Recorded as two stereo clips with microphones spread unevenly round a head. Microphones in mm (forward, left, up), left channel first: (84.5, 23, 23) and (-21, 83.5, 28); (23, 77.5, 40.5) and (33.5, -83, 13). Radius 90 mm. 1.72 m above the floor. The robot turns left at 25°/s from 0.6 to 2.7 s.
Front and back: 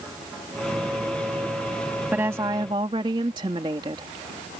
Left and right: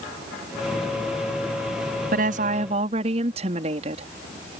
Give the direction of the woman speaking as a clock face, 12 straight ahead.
4 o'clock.